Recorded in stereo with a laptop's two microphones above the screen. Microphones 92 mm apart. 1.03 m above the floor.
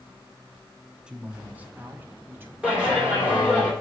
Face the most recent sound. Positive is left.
turn(degrees=-10)  # may be behind; listen again after turning